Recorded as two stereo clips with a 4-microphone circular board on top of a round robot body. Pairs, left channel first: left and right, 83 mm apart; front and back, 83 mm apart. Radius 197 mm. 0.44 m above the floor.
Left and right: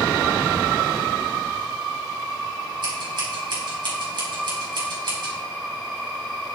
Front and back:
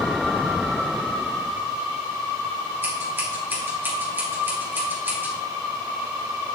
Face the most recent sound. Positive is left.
turn(degrees=-115)